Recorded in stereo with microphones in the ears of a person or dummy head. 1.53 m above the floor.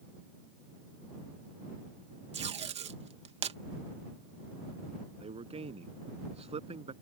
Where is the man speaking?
30° right (ahead or behind).